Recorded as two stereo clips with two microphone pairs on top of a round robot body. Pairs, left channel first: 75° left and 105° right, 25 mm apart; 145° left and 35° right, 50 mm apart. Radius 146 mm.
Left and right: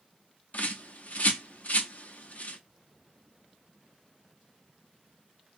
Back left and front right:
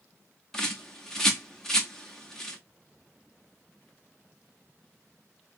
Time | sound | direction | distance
0.5 | a bird | 65° left | 1.3 m